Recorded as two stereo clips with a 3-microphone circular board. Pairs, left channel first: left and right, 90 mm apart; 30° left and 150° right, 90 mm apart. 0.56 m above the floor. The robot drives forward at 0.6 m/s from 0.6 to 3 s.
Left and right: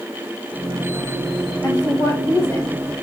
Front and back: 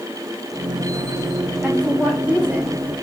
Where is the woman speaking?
135° left, 2.0 m; by 2.8 s 145° left, 2.5 m.